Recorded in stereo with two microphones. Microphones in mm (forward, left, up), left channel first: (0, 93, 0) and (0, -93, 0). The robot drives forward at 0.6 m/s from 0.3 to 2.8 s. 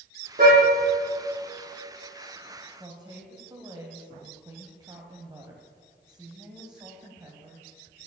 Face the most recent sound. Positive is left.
turn(degrees=-20)  # may be behind; listen again after turning